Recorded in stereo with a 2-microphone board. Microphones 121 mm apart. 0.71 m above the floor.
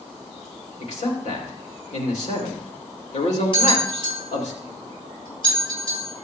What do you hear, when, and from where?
0.8 s a man speaking: 75° left (ahead or behind), 2.5 m
3.5 s a bell: 45° left (ahead or behind), 6 m